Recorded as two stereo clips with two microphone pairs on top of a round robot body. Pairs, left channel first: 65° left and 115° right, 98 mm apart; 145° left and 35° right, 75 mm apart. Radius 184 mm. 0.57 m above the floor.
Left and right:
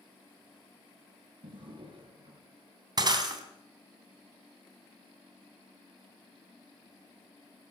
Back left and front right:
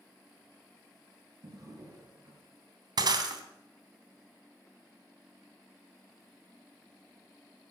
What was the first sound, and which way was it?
A drawer, 85° right.